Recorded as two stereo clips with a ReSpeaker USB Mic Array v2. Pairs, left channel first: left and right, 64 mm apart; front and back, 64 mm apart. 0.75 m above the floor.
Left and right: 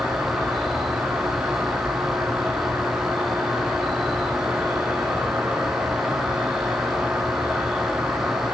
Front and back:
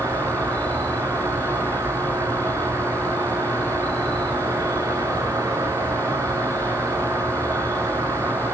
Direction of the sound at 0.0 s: 165° right.